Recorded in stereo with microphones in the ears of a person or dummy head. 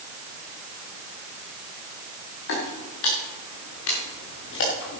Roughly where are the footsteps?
Left.